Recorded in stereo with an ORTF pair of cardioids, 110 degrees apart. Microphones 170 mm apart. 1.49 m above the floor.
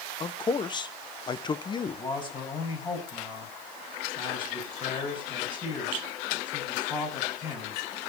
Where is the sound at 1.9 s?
30° left, 7.5 m.